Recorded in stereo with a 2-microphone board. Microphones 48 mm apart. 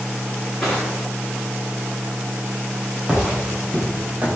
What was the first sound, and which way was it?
Crushing, 10° left (ahead or behind).